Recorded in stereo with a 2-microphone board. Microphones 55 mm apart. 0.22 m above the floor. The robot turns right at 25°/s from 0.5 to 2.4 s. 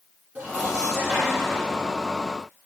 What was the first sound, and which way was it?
Dishes clattering, 30° right.